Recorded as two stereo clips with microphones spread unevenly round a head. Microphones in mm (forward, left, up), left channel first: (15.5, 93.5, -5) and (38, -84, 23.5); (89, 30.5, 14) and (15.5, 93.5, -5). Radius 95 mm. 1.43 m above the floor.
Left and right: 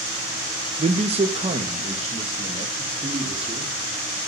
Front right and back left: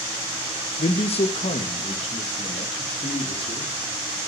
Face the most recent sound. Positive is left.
turn(degrees=-20)